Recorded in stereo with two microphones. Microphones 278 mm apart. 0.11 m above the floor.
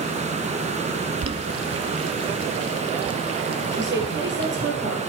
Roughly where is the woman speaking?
Right.